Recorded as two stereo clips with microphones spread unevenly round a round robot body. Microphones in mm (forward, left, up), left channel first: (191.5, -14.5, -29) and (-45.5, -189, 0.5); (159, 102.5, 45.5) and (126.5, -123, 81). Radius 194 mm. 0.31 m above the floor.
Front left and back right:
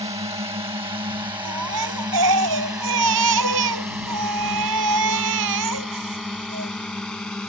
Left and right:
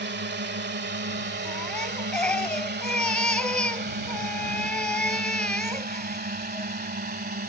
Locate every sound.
0.0 s a drone: 75° right; by 7.5 s 50° right
1.4 s a baby crying: 170° left